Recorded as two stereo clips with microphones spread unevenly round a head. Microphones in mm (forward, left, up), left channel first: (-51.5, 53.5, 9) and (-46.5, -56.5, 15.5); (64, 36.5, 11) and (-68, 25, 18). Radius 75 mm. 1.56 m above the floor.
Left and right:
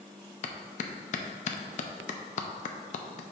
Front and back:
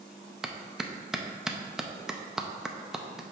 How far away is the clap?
About 0.6 m.